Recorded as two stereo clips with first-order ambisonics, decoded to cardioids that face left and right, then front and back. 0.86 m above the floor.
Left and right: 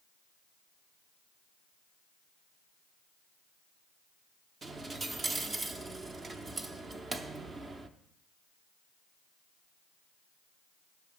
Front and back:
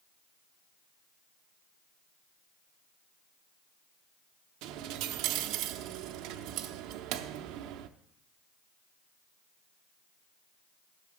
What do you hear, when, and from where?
4.6 s a dropped coin: 165° right, 0.6 m